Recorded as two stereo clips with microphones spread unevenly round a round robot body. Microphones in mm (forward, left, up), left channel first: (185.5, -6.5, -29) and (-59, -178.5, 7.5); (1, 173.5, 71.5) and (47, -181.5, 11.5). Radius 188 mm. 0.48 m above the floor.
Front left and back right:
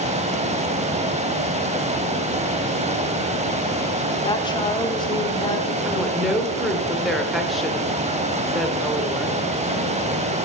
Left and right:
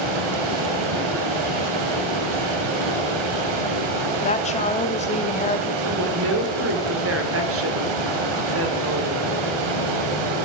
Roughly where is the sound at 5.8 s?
Ahead right.